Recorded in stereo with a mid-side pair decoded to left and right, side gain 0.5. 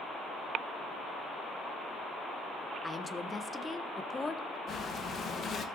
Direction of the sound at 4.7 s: 50° left.